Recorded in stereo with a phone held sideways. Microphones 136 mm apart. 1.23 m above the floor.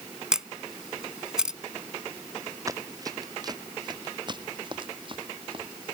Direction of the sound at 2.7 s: 25° right (ahead or behind).